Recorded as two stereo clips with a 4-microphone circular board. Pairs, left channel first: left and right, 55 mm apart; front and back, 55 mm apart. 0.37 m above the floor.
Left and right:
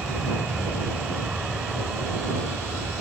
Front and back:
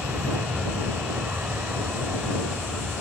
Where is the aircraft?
155° right; by 3.0 s 160° right.